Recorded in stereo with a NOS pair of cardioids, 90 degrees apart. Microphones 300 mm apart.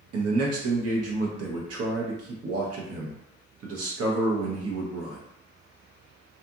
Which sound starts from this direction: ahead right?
A man speaking, at 0.1 s.